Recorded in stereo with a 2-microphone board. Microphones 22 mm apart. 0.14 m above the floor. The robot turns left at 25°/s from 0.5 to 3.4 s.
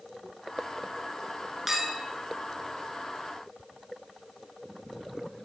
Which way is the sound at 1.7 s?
10° right (ahead or behind).